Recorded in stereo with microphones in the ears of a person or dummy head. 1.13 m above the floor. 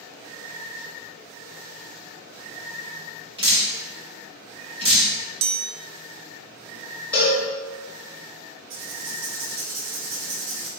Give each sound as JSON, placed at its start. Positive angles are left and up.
{"t": 3.4, "sound": "dripping", "side_deg": -25, "distance_m": 1.4}
{"t": 5.4, "sound": "a chime", "side_deg": -50, "distance_m": 0.5}
{"t": 7.1, "sound": "a cowbell", "side_deg": 10, "distance_m": 1.3}
{"t": 8.7, "sound": "writing", "side_deg": -75, "distance_m": 1.3}